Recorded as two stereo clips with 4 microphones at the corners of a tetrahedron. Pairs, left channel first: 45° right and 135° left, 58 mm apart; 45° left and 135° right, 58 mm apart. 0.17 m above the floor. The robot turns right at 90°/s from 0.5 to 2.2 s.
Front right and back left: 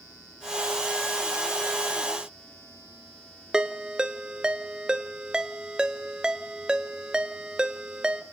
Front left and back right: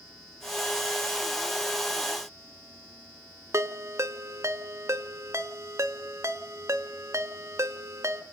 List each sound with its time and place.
3.5 s a ringtone: 150° right, 1.0 m